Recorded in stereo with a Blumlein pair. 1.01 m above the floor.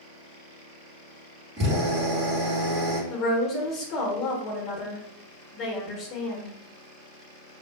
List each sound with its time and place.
1.6 s a drill: 30° right, 1.6 m
3.1 s a woman speaking: 30° left, 0.9 m